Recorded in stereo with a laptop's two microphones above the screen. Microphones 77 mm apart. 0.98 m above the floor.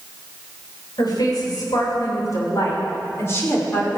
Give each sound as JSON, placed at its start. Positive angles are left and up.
{"t": 1.0, "sound": "a woman speaking", "side_deg": 60, "distance_m": 4.0}